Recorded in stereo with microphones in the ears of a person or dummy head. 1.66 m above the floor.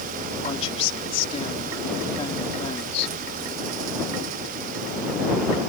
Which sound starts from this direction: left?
A woman speaking, at 0.4 s.